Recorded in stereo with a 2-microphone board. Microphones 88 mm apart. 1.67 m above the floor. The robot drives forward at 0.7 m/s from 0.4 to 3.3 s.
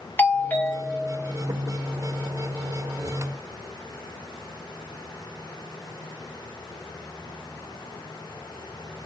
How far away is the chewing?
I don't hear chewing.